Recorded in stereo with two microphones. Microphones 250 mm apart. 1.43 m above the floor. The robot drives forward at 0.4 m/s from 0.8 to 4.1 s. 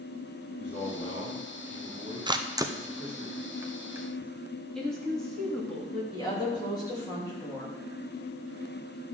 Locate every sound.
0.6 s a man speaking: 45° left (ahead or behind), 2.5 m; by 3.3 s 35° left (ahead or behind), 3.5 m
2.3 s a camera shutter: 20° right (ahead or behind), 0.5 m; by 4.3 s 10° right (ahead or behind), 1.2 m
4.8 s a woman speaking: centre (ahead or behind), 2.5 m
6.1 s a woman speaking: 15° left (ahead or behind), 2.5 m